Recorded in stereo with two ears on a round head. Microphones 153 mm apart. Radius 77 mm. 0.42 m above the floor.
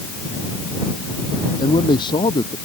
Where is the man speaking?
25° left (ahead or behind).